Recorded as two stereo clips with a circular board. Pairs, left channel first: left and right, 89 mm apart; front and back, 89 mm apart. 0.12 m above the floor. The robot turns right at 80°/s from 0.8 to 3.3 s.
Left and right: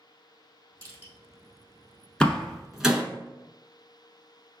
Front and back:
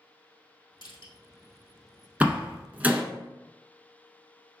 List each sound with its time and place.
0.8 s crushing: 40° right, 2 m; by 1.1 s 15° right, 2 m
2.2 s a door slam: 145° left, 0.9 m; by 3.0 s 145° right, 0.9 m